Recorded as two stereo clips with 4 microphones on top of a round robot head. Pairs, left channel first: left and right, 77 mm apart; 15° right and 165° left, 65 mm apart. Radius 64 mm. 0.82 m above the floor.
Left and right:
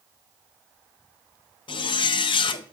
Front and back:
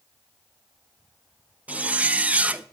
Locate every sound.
1.7 s a zipper: 95° left, 0.6 m